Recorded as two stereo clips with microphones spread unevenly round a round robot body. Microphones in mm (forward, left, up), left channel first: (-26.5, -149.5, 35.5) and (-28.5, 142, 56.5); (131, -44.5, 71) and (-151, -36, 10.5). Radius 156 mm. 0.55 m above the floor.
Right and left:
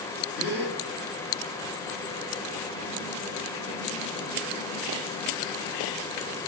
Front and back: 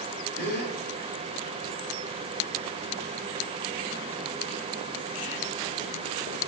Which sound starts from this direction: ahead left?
A gasp, at 0.4 s.